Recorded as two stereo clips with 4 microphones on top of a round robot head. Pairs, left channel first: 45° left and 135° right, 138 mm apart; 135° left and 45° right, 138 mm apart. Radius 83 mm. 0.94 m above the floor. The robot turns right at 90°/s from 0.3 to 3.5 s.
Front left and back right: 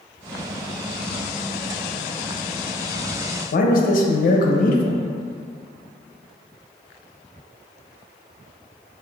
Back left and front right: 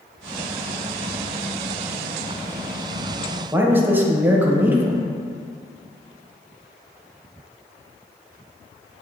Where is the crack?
No crack in this recording.